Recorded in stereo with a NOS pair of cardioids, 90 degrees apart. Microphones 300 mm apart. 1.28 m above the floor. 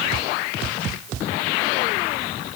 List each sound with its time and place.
Only background noise.